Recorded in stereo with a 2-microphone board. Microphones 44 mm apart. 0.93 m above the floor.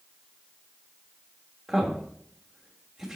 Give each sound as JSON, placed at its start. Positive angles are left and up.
{"t": 1.7, "sound": "a man speaking", "side_deg": -10, "distance_m": 1.4}